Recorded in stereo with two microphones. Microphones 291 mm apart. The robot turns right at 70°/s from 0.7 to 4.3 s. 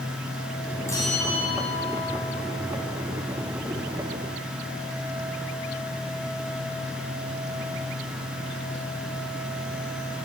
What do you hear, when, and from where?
0.9 s a bell: 10° left, 7.5 m; by 2.2 s 100° left, 7.5 m